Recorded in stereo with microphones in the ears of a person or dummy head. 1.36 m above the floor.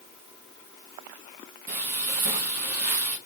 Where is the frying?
55° right (ahead or behind), 1.0 m.